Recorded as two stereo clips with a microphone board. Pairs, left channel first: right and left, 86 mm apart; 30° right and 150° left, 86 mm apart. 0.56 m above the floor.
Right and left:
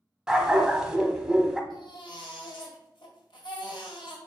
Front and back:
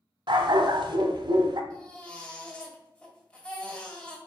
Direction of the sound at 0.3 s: 175° left.